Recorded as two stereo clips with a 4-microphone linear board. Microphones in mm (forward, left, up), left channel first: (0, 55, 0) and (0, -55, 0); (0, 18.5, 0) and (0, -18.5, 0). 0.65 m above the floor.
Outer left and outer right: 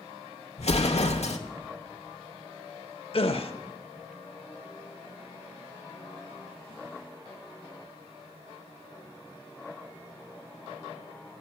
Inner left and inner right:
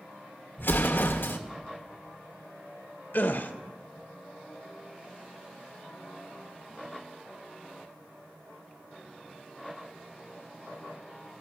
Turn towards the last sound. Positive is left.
turn(degrees=60)  # may be behind; listen again after turning